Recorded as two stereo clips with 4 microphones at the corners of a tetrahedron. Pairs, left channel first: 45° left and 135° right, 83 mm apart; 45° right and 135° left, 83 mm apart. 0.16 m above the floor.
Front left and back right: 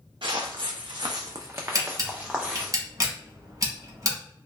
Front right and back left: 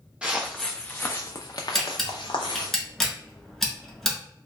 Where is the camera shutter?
130° right, 0.9 m.